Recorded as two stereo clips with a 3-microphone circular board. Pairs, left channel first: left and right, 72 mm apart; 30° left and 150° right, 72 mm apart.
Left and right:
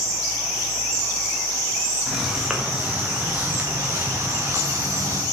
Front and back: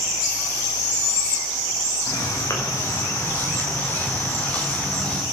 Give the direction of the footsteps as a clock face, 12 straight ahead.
12 o'clock.